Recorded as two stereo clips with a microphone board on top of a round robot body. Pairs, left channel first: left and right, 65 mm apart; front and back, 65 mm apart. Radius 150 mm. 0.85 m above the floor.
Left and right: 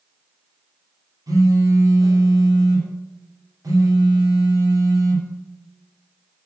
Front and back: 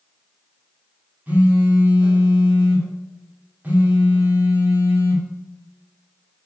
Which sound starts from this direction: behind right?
A phone buzzing, at 1.3 s.